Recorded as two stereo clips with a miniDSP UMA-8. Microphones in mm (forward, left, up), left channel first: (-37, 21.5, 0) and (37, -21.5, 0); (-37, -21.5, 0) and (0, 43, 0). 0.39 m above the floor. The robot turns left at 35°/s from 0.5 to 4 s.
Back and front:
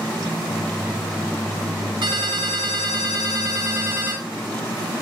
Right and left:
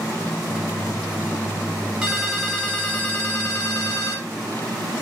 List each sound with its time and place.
2.0 s a ringtone: 20° right, 1.4 m; by 4.3 s 90° right, 1.4 m